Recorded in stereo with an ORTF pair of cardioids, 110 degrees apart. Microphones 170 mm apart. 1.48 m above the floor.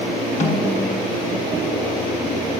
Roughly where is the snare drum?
Ahead left.